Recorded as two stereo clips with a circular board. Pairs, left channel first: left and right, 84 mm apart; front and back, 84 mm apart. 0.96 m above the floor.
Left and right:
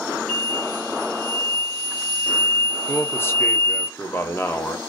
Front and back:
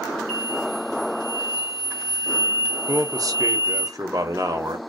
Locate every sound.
0.3 s an explosion: 15° left, 1.2 m
2.9 s a man speaking: 145° left, 0.6 m